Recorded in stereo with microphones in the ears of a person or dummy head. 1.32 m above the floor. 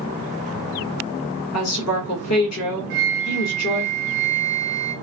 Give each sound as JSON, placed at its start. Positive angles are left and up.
{"t": 1.5, "sound": "a woman speaking", "side_deg": 80, "distance_m": 1.6}
{"t": 2.9, "sound": "a flute", "side_deg": -50, "distance_m": 0.8}